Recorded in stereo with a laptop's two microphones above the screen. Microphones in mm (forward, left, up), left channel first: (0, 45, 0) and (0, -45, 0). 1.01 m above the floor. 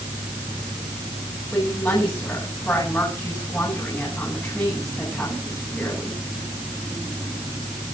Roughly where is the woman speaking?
Centre.